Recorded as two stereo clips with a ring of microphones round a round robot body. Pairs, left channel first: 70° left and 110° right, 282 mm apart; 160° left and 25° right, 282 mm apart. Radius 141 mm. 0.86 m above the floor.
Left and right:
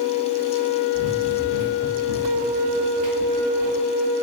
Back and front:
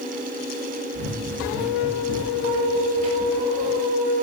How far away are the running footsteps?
About 5.5 m.